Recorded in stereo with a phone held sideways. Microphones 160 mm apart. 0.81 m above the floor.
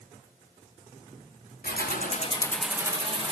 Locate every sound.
1.6 s keys jangling: 75° left (ahead or behind), 0.9 m; by 3.3 s 35° right (ahead or behind), 1.1 m